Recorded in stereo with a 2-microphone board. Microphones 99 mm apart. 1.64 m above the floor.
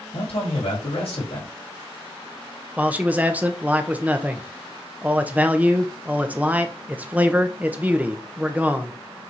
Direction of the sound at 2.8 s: 15° right (ahead or behind).